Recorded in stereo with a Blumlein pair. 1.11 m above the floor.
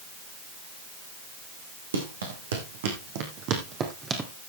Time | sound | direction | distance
1.9 | running footsteps | 70° right | 4 m